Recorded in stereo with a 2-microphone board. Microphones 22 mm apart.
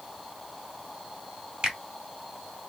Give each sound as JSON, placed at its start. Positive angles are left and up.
{"t": 1.6, "sound": "a finger snap", "side_deg": -40, "distance_m": 1.6}